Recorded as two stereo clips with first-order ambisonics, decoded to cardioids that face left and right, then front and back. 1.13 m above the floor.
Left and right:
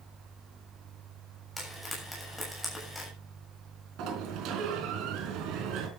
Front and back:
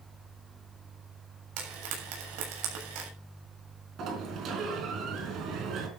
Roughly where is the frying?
Behind.